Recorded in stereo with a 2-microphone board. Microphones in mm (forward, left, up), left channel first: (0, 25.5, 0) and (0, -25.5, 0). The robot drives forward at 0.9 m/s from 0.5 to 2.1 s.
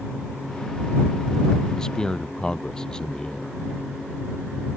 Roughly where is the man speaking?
Centre.